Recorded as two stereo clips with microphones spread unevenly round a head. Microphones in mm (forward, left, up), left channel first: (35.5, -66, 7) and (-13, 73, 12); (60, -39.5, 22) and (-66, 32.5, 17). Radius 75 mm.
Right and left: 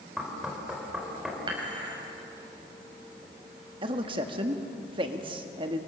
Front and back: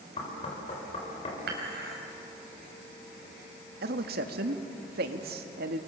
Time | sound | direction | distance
0.2 | knocking | 25° left | 4.5 m
1.5 | dishes clattering | 170° left | 4.5 m
3.8 | a man speaking | 170° left | 1.7 m